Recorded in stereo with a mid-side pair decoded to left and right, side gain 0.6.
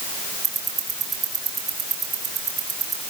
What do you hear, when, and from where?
0.4 s ticking: 40° right, 7 m